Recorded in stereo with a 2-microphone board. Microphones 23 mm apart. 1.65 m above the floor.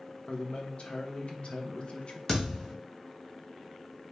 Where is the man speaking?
50° left (ahead or behind), 0.9 m.